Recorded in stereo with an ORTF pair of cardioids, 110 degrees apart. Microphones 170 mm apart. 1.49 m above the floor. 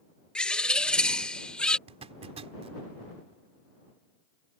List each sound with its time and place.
0.3 s a bird: 5° left
1.9 s a zipper: 40° right